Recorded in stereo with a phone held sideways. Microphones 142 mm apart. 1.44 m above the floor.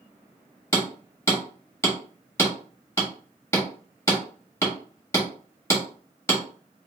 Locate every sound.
0.7 s hammering: 20° left (ahead or behind), 1.2 m